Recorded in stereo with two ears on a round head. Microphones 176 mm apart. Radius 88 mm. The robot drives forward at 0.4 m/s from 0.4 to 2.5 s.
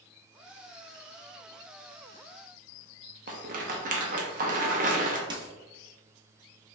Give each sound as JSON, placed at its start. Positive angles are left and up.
{"t": 3.3, "sound": "a rattle", "side_deg": -45, "distance_m": 0.8}
{"t": 5.3, "sound": "a dropped coin", "side_deg": -25, "distance_m": 0.8}